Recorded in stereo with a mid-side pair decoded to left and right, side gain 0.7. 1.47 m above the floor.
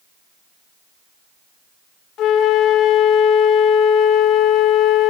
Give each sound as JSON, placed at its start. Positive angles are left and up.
{"t": 2.2, "sound": "a flute", "azimuth_deg": 50, "distance_m": 1.6}